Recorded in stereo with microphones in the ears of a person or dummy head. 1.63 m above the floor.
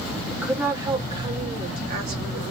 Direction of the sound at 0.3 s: Centre (ahead or behind).